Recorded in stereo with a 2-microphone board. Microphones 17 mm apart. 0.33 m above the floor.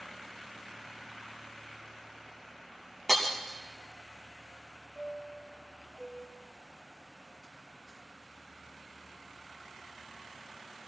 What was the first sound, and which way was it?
Breaking glass, 15° left (ahead or behind).